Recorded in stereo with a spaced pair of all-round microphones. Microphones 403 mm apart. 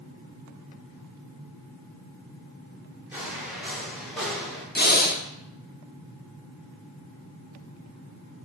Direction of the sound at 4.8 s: 25° left (ahead or behind).